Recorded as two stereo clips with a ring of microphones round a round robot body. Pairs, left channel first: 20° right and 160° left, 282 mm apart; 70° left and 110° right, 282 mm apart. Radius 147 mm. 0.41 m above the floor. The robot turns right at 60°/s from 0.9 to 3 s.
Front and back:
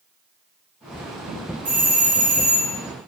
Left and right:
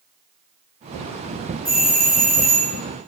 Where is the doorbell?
130° left, 1.7 m; by 2.8 s 165° right, 1.7 m.